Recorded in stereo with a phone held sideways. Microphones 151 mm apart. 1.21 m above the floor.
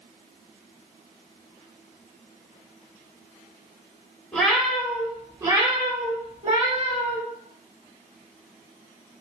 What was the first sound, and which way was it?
A cat meowing, 5° left (ahead or behind).